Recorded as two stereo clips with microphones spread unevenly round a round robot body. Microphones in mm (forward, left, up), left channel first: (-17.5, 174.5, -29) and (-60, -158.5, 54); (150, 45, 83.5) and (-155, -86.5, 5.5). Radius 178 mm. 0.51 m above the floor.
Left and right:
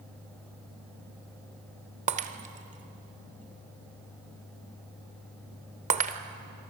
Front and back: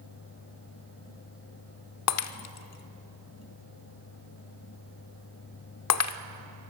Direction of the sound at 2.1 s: 25° right.